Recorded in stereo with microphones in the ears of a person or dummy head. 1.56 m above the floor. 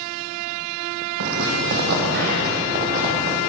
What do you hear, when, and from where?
1.2 s footsteps: 60° right (ahead or behind), 4 m; by 3.4 s 40° right (ahead or behind), 4 m